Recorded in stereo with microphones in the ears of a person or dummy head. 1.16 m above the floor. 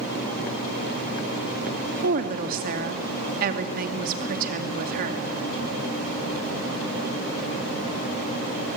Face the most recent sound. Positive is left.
turn(degrees=-50)  # may be behind; listen again after turning